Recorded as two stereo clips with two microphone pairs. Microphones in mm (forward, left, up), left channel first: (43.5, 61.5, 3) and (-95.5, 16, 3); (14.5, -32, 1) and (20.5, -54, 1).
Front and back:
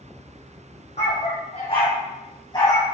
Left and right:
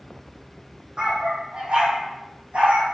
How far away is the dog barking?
About 4 m.